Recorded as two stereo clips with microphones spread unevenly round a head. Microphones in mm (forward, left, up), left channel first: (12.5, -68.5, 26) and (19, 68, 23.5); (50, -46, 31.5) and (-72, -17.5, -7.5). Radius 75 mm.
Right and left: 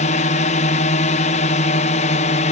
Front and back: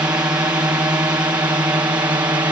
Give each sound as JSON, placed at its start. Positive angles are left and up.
{"t": 0.0, "sound": "a drone", "azimuth_deg": -125}